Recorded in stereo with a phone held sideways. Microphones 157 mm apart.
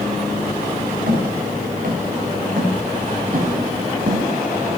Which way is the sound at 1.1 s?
70° right (ahead or behind).